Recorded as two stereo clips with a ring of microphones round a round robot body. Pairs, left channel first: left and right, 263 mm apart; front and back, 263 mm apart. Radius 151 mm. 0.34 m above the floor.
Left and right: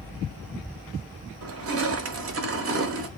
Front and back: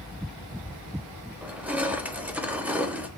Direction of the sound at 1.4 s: 95° right.